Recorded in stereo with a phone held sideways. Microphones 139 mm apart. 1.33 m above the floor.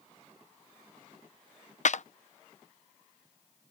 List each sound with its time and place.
1.9 s a clap: 60° left (ahead or behind)